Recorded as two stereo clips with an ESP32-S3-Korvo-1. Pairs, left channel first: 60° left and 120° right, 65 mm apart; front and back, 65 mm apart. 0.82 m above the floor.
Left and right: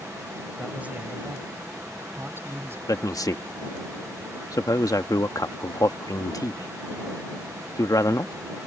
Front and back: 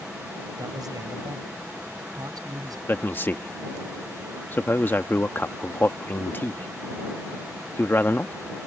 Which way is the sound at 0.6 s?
170° left.